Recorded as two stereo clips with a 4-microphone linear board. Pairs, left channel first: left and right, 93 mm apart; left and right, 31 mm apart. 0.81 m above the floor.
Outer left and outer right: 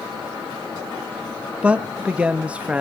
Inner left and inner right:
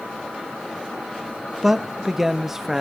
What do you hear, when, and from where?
1.6 s a man speaking: 15° right (ahead or behind), 1.0 m